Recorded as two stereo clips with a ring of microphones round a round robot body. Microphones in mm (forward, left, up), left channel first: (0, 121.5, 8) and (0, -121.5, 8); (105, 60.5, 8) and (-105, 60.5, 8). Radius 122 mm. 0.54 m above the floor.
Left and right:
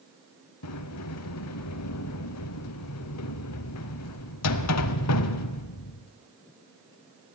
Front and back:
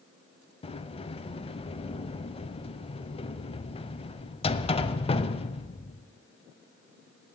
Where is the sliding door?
65° left, 0.8 m.